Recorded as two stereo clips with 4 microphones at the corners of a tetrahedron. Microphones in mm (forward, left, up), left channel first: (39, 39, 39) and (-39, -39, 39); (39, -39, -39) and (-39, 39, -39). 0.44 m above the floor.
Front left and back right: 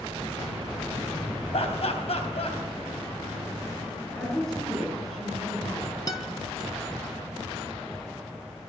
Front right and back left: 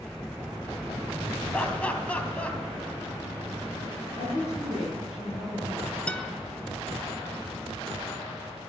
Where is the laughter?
30° left, 3 m.